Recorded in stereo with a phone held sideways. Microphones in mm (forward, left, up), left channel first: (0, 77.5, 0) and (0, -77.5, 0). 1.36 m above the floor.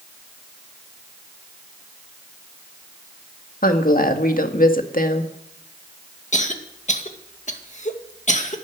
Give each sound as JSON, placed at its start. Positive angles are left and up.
{"t": 3.6, "sound": "a woman speaking", "side_deg": 70, "distance_m": 1.8}
{"t": 6.3, "sound": "a cough", "side_deg": 55, "distance_m": 2.0}